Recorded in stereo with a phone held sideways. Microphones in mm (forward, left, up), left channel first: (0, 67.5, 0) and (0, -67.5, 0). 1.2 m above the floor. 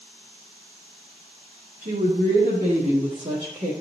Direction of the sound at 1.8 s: 80° right.